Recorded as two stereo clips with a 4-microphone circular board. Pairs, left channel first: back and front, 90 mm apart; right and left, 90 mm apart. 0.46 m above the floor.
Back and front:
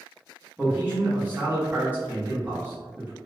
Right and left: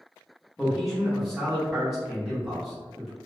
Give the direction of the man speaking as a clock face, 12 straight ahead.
12 o'clock.